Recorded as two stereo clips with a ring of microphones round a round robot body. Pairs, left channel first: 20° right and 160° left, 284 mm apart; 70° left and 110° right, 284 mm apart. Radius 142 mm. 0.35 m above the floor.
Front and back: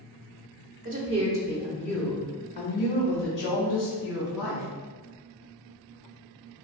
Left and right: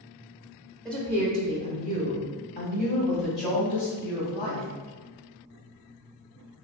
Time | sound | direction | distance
0.8 | a woman speaking | 155° left | 0.9 m